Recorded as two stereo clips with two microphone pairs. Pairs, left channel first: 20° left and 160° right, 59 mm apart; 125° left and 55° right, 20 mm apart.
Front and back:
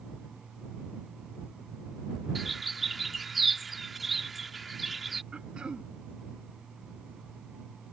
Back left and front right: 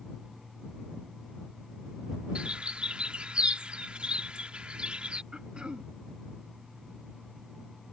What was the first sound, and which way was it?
A bird, 75° right.